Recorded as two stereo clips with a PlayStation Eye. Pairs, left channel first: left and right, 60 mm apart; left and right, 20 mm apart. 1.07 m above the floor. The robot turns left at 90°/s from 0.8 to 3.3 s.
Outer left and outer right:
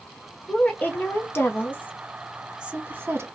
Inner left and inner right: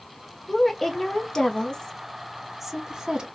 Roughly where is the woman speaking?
Left.